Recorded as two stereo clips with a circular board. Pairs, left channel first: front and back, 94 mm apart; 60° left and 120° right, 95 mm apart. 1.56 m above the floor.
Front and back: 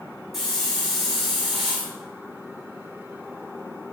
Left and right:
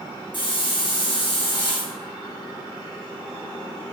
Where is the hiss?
95° left, 4.5 m.